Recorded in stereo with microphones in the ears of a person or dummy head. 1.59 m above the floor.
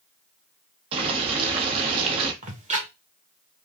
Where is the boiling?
35° right (ahead or behind), 1.1 m.